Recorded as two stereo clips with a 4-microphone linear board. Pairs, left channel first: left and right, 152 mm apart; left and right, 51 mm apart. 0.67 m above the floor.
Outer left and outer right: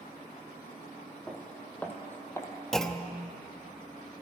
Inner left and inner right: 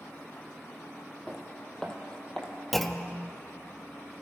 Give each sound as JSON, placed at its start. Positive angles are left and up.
{"t": 1.3, "sound": "footsteps", "side_deg": 5, "distance_m": 1.8}
{"t": 2.7, "sound": "a clunk", "side_deg": 5, "distance_m": 0.6}